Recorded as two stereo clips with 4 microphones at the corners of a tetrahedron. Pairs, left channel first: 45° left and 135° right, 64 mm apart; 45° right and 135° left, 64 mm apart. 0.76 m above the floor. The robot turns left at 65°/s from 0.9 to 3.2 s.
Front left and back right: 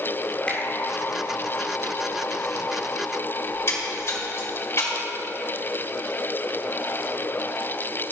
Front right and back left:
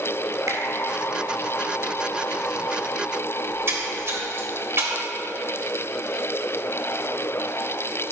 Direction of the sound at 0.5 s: 115° left.